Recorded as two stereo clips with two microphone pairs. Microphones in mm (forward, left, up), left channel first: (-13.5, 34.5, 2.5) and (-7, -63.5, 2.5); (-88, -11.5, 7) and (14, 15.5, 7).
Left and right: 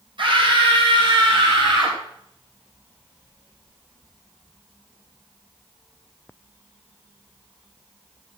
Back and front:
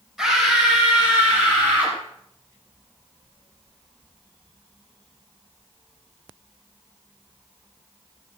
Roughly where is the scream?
Right.